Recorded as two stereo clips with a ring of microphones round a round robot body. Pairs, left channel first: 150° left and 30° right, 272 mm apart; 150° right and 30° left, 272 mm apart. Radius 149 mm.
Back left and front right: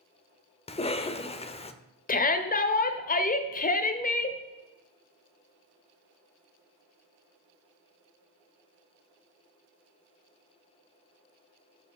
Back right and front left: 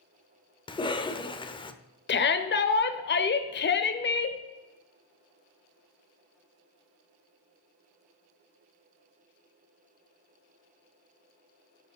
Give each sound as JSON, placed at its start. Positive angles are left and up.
{"t": 0.7, "sound": "a cough", "azimuth_deg": 170, "distance_m": 0.9}
{"t": 2.1, "sound": "a shout", "azimuth_deg": -170, "distance_m": 1.1}